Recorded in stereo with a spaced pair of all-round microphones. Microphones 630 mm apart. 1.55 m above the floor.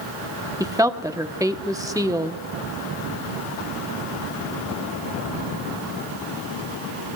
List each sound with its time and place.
0.6 s a woman speaking: 5° right (ahead or behind), 0.9 m